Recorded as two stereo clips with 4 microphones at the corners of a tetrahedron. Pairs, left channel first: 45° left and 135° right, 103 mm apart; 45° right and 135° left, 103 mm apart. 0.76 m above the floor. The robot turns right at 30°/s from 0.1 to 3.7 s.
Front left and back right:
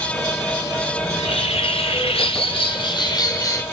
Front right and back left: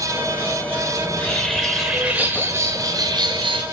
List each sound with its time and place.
1.0 s a bird: 25° left, 2.5 m; by 3.6 s 105° left, 2.5 m